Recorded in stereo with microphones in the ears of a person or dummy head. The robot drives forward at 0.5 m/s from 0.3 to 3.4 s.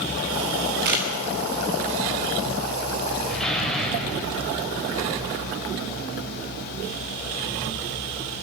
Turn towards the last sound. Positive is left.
turn(degrees=10)  # may be behind; listen again after turning